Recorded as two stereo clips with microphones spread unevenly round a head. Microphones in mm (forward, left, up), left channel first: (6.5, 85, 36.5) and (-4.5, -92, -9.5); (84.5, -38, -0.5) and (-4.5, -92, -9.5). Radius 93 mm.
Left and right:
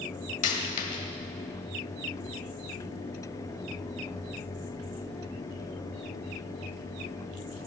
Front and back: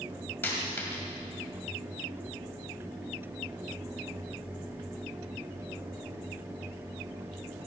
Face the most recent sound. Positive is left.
turn(degrees=95)